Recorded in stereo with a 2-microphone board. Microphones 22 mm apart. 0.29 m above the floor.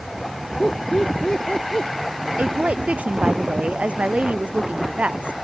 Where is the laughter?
40° left (ahead or behind); by 1.9 s 45° left (ahead or behind).